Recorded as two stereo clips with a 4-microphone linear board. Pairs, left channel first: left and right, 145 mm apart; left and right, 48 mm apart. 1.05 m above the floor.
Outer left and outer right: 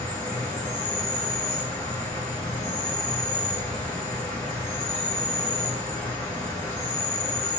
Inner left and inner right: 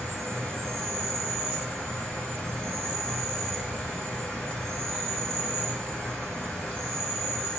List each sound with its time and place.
0.0 s an insect: 30° left (ahead or behind), 2 m